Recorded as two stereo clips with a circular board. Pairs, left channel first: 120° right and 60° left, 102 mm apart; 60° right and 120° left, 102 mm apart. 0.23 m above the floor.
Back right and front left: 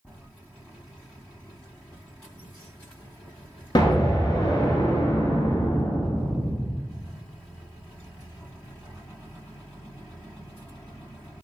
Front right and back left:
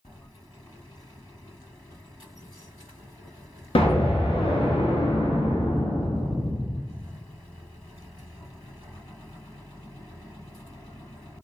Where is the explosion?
80° right, 0.6 m.